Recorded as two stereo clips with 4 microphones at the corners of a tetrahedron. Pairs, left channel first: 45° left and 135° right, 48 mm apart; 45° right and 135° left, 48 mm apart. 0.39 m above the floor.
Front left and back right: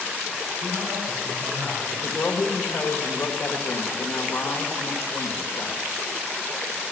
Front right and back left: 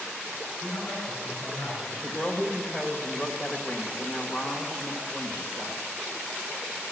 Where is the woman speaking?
10° left, 1.2 m.